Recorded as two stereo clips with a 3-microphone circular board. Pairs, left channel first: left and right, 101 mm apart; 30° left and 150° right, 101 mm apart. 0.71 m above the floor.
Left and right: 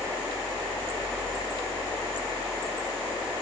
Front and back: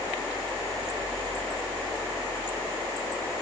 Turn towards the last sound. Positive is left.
No sound to turn to.